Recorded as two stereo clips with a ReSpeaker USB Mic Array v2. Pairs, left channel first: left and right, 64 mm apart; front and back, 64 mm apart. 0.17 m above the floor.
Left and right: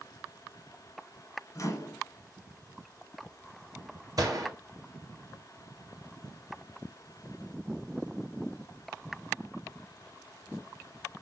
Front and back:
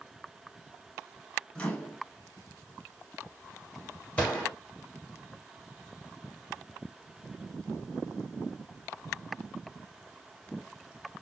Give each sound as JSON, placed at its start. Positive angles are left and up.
{"t": 1.6, "sound": "a microwave", "azimuth_deg": 75, "distance_m": 1.3}
{"t": 4.2, "sound": "a gunshot", "azimuth_deg": -65, "distance_m": 2.0}